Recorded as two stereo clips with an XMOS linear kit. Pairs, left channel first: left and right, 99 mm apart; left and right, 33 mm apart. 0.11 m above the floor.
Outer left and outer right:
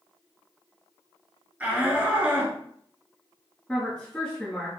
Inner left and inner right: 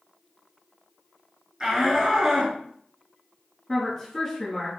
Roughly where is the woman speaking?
Centre.